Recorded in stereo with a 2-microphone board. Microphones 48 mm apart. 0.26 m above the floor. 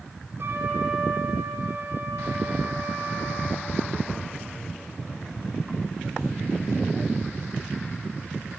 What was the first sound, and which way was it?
A trumpet, 60° right (ahead or behind).